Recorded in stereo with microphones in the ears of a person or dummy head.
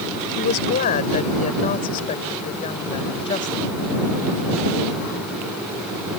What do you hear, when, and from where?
0.4 s a woman speaking: 45° left (ahead or behind); by 3.8 s 25° left (ahead or behind)